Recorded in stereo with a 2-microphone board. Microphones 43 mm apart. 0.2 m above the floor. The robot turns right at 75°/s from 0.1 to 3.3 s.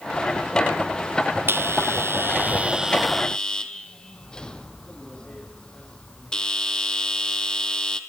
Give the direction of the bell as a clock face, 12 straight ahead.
4 o'clock.